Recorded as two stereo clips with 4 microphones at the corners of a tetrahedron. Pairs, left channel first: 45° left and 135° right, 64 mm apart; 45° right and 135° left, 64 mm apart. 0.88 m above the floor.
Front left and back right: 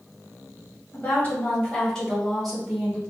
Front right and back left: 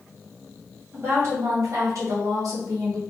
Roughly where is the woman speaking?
Left.